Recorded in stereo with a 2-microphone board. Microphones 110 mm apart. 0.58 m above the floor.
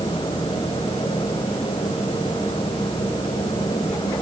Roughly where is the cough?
No cough in this recording.